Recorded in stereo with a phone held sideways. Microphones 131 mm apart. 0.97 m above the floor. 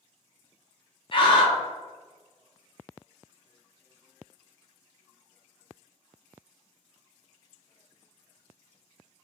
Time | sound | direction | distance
1.1 | a scream | 40° left (ahead or behind) | 0.9 m